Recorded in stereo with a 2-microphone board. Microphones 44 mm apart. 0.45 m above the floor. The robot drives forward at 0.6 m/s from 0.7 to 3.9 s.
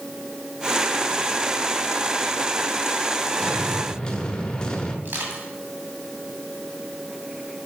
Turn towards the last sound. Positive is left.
turn(degrees=-55)  # may be behind; listen again after turning